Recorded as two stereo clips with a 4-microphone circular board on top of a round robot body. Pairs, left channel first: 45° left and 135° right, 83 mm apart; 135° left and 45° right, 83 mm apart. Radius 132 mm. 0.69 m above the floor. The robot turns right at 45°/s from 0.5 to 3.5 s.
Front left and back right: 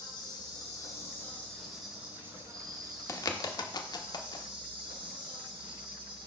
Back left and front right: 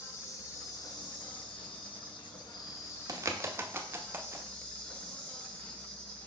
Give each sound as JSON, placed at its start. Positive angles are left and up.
{"t": 0.0, "sound": "an insect", "azimuth_deg": 75, "distance_m": 1.8}
{"t": 3.1, "sound": "a bird", "azimuth_deg": -5, "distance_m": 0.8}